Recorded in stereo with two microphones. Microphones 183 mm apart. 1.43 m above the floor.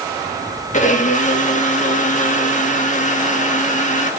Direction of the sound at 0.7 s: 40° left (ahead or behind).